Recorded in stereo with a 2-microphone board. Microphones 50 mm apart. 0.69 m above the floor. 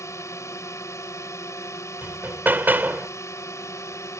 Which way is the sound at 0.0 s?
70° left (ahead or behind).